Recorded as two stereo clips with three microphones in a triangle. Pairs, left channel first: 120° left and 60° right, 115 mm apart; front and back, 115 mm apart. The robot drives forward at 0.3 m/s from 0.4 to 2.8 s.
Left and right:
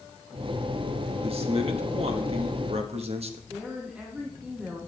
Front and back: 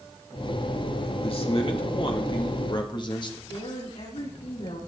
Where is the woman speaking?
20° left, 8 m.